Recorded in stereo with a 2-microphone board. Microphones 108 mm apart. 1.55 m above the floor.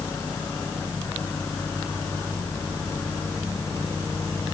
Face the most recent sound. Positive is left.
No sound to turn to.